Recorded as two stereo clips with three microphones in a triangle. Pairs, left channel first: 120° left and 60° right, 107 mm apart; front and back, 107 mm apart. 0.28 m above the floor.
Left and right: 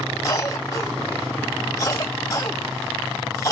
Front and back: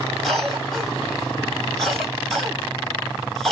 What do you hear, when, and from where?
0.2 s a cough: 85° left, 1.6 m